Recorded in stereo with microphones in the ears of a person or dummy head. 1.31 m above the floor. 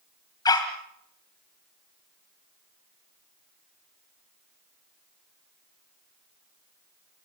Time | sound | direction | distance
0.5 | a dog barking | 20° left (ahead or behind) | 2.5 m